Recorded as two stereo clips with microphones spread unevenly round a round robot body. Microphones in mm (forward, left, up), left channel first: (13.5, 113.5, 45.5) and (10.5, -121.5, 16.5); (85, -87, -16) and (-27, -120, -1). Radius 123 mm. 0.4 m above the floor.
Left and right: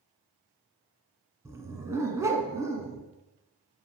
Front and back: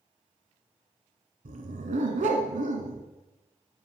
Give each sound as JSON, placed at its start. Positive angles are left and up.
{"t": 1.4, "sound": "a dog barking", "azimuth_deg": -170, "distance_m": 1.6}